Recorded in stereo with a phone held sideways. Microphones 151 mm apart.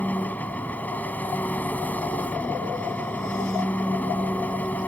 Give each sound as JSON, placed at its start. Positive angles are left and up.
{"t": 0.0, "sound": "an engine running", "side_deg": 10}